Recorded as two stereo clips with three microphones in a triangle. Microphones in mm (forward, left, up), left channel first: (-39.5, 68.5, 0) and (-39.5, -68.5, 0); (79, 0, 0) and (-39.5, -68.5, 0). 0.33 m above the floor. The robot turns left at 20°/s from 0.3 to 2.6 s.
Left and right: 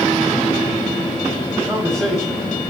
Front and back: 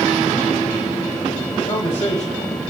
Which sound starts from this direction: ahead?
A man speaking, at 1.7 s.